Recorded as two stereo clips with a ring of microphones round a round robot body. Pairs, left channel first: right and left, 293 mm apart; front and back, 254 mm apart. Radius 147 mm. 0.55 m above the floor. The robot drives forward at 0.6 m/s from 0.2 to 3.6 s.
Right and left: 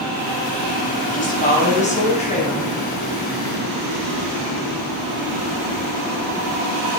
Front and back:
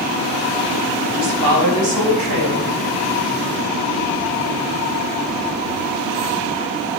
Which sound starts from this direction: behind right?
A woman speaking, at 1.1 s.